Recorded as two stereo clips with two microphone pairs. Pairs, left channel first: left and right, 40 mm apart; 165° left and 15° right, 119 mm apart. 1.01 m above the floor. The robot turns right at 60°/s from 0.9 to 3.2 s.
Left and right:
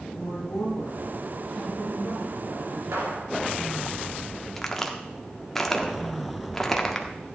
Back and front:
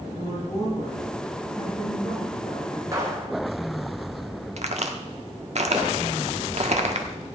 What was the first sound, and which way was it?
A woman speaking, 105° left.